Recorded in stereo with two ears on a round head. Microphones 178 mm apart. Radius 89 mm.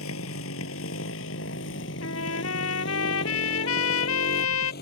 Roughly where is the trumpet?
Left.